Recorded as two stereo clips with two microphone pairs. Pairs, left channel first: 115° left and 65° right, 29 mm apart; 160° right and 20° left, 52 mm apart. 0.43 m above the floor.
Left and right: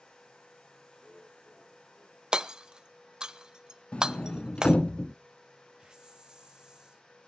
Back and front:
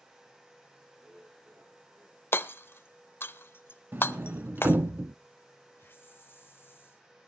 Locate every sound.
1.0 s laughter: 75° left, 6.5 m; by 2.2 s 70° left, 6.5 m
2.3 s hammering: 120° right, 0.5 m
3.9 s a sliding door: 70° left, 0.6 m
5.8 s a hiss: 125° right, 1.4 m